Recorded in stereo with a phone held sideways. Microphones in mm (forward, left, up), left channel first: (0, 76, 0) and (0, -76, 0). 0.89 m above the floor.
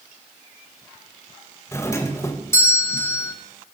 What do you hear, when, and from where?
1.7 s a doorbell: 20° left (ahead or behind), 0.9 m